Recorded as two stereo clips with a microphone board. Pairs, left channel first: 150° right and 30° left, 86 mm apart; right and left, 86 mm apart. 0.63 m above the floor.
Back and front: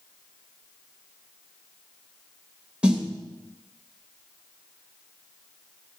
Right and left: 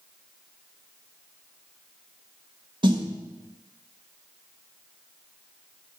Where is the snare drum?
110° left, 1.2 m.